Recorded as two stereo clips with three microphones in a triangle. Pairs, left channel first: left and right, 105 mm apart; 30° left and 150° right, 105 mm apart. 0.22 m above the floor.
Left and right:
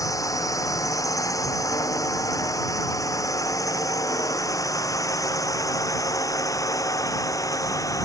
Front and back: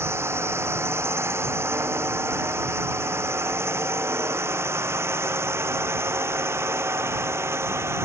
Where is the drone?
145° left.